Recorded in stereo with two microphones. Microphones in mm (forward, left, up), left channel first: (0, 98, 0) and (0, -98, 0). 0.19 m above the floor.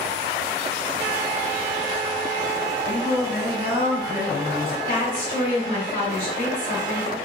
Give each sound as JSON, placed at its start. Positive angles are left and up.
{"t": 2.9, "sound": "singing", "side_deg": -10, "distance_m": 1.7}
{"t": 4.9, "sound": "a woman speaking", "side_deg": 50, "distance_m": 1.8}